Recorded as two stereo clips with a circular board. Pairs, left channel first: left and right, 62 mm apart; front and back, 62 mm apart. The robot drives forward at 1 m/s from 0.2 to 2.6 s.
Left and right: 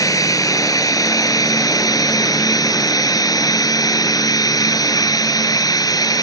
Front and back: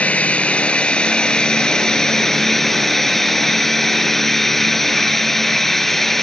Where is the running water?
70° left; by 6.2 s 85° left.